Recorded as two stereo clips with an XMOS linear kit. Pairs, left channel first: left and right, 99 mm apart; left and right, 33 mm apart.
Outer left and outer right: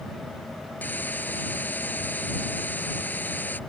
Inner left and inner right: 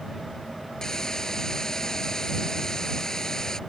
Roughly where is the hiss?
Centre.